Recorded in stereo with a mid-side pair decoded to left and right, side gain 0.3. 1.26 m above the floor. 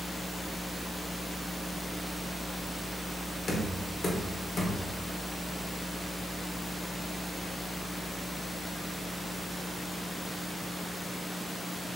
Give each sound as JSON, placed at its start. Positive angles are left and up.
{"t": 3.5, "sound": "knocking", "azimuth_deg": 65, "distance_m": 1.0}